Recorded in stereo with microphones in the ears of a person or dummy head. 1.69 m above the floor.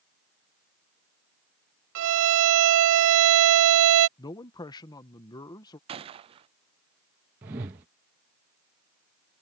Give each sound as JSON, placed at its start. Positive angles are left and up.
{"t": 1.9, "sound": "a violin", "side_deg": -80}
{"t": 4.2, "sound": "a man speaking", "side_deg": 20}
{"t": 5.9, "sound": "a gunshot", "side_deg": -30}
{"t": 7.4, "sound": "a whoosh", "side_deg": -20}